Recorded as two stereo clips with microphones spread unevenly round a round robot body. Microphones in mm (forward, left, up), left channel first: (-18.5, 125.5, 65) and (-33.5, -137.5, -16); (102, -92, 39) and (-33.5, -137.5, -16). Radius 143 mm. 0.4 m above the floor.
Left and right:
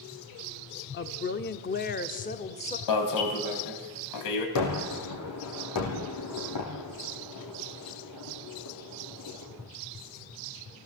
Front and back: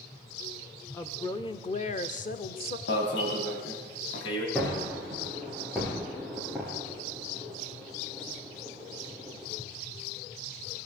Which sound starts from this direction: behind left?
A woman speaking, at 0.9 s.